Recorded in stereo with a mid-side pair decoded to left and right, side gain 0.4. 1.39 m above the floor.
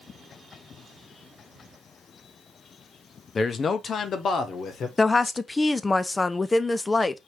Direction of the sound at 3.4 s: 40° left.